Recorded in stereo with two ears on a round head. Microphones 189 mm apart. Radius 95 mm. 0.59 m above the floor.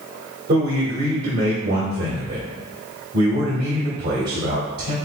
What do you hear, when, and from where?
0.5 s a man speaking: 50° right (ahead or behind), 1.7 m